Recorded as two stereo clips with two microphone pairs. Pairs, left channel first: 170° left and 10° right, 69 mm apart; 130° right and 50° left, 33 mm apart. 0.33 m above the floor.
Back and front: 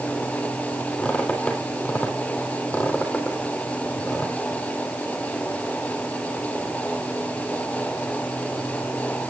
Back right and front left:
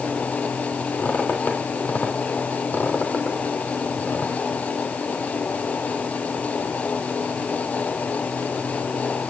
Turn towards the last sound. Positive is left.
turn(degrees=-115)